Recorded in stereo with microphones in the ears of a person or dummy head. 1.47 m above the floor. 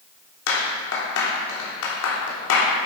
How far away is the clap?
About 3 m.